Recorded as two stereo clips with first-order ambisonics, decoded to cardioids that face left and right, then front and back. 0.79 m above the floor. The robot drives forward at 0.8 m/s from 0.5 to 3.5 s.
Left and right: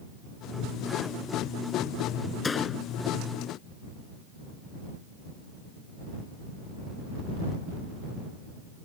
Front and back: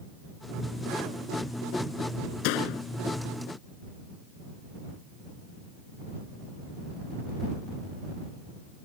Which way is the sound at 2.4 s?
15° left.